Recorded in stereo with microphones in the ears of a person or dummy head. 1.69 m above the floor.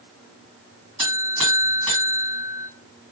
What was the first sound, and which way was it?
A buzzer, 35° right (ahead or behind).